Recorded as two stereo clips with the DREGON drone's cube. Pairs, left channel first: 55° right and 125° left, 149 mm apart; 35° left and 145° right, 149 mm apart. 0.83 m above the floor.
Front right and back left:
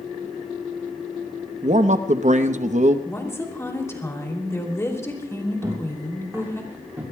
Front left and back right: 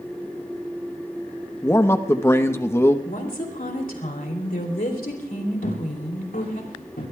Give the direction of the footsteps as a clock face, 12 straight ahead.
10 o'clock.